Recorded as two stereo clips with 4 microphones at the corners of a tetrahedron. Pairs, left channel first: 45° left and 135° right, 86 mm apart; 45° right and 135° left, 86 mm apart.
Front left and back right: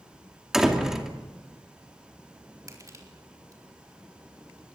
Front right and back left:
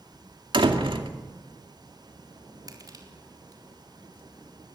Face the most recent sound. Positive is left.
turn(degrees=175)